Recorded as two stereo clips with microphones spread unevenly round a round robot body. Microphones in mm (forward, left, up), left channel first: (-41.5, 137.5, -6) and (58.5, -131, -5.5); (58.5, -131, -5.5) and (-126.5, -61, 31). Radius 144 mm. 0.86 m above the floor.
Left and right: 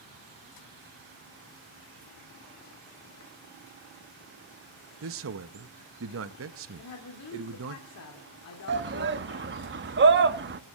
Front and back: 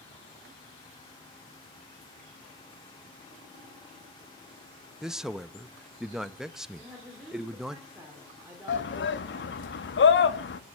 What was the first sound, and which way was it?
A man speaking, 105° right.